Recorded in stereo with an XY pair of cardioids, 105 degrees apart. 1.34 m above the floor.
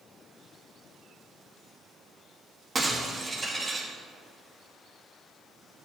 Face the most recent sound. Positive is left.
turn(degrees=-30)